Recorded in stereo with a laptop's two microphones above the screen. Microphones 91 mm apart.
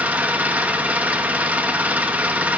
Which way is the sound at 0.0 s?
15° right (ahead or behind).